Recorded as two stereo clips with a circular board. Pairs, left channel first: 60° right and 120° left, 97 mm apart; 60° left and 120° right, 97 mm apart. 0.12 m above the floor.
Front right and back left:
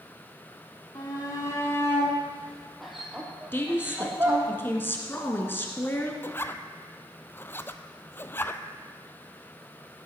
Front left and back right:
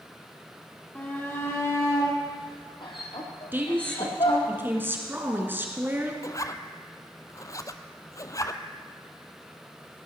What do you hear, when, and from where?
0.9 s a shout: 15° right, 3.5 m; by 4.5 s 60° left, 4.5 m
3.5 s a woman speaking: 90° right, 1.6 m
6.2 s a zipper: 5° left, 0.5 m